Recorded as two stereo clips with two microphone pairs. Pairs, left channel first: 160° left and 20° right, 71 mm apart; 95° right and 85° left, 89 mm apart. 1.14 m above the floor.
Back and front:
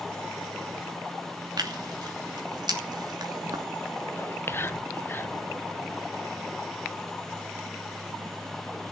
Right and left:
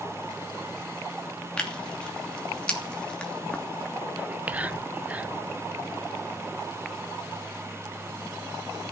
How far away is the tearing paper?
About 2.5 m.